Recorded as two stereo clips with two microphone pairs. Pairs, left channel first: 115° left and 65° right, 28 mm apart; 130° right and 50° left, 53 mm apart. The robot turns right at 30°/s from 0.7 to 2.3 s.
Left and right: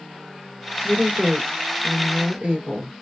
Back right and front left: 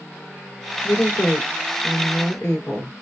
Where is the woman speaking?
140° right, 2 m; by 3.0 s 95° right, 2 m.